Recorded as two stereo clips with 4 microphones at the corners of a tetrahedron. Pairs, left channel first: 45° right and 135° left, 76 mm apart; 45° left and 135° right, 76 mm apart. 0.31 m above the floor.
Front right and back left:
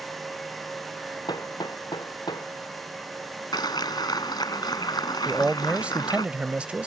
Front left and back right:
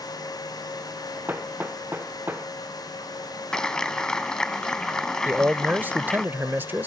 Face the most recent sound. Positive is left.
turn(degrees=-170)